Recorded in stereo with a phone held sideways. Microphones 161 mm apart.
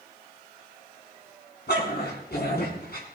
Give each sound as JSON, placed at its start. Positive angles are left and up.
{"t": 1.7, "sound": "a dog barking", "side_deg": 80, "distance_m": 5.0}